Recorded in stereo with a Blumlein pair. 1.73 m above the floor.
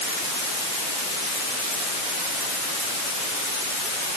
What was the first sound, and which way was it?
Only background noise.